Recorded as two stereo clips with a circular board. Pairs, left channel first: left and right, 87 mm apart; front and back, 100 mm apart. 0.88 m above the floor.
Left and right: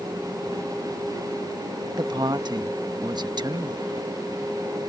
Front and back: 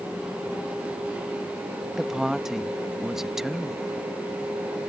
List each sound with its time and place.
2.0 s a woman speaking: 95° right